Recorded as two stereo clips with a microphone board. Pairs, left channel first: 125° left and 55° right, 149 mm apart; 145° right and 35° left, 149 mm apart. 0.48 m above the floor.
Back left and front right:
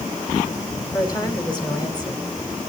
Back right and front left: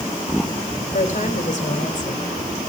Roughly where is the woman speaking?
Behind.